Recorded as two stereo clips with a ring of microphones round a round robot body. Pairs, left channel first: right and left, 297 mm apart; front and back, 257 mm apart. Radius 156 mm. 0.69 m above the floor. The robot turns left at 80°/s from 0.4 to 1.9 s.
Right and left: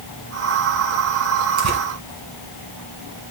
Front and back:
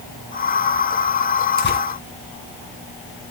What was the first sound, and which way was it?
Tearing paper, 55° left.